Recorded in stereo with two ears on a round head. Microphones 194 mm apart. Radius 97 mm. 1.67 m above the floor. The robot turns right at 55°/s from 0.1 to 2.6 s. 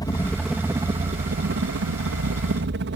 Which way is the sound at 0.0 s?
160° left.